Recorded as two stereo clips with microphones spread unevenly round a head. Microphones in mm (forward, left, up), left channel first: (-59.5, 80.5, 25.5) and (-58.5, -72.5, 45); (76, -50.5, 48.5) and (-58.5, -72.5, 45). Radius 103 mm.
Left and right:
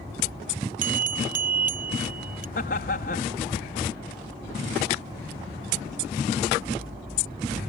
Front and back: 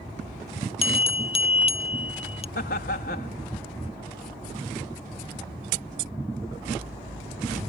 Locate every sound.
0.8 s a bell: 35° right
2.5 s laughter: 45° left